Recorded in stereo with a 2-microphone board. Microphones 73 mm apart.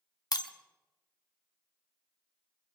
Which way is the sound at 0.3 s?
60° left (ahead or behind).